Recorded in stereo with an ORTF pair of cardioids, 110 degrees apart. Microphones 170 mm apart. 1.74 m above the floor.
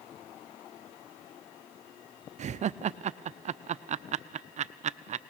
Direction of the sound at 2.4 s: 45° right.